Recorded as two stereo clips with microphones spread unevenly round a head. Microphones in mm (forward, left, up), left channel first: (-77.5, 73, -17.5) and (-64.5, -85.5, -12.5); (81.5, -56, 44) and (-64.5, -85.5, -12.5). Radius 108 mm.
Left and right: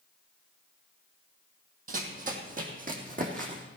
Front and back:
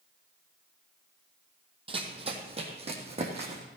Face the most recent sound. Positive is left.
turn(degrees=-115)